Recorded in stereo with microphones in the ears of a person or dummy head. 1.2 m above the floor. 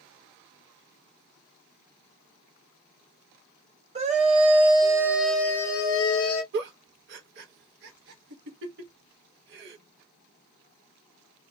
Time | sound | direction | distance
4.0 | a scream | 30° right (ahead or behind) | 0.8 m
6.5 | a giggle | 65° right (ahead or behind) | 0.8 m